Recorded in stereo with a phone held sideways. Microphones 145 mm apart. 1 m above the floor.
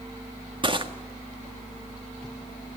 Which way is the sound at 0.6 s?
35° right (ahead or behind).